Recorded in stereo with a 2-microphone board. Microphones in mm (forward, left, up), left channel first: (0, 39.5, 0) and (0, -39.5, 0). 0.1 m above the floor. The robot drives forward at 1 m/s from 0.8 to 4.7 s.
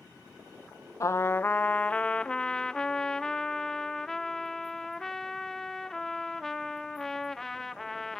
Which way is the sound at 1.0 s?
45° left (ahead or behind).